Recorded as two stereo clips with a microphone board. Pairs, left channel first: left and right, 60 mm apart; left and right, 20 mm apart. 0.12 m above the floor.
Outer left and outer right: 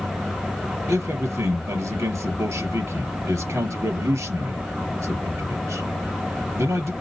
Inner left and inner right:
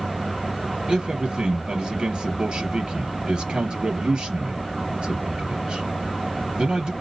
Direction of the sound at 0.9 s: 55° right (ahead or behind).